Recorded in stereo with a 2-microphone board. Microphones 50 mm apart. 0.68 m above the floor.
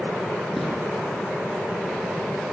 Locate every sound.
0.6 s footsteps: centre (ahead or behind), 7.5 m